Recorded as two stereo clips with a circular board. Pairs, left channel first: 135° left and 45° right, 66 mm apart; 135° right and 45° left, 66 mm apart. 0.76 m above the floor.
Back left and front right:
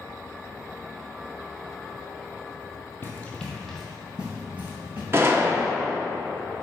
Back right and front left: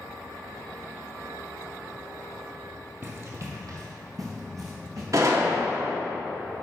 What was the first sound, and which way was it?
Running footsteps, 90° left.